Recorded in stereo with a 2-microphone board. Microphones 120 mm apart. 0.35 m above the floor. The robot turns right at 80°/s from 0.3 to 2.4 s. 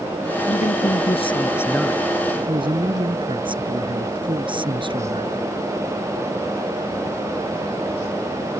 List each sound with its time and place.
0.5 s a man speaking: 70° left; by 5.4 s 135° right